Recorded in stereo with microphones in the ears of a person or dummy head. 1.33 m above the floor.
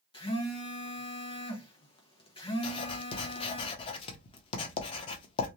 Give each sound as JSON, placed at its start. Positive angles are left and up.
{"t": 0.1, "sound": "a phone buzzing", "side_deg": 30, "distance_m": 0.9}
{"t": 2.6, "sound": "writing", "side_deg": 30, "distance_m": 0.7}